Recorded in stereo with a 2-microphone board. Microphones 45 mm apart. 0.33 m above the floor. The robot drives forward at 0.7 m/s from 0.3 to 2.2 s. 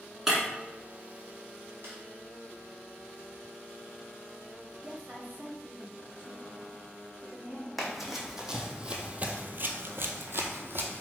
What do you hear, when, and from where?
0.3 s breaking glass: 5° right (ahead or behind), 1.3 m
1.8 s a snare drum: 60° right (ahead or behind), 2.0 m
4.8 s a woman speaking: 45° right (ahead or behind), 1.1 m
7.8 s running footsteps: 5° right (ahead or behind), 1.1 m; by 11.0 s 50° right (ahead or behind), 0.9 m